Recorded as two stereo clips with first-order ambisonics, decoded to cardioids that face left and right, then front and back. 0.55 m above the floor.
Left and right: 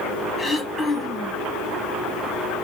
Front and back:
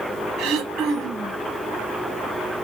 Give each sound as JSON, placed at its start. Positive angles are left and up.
{"t": 0.4, "sound": "throat clearing", "azimuth_deg": 170, "distance_m": 1.7}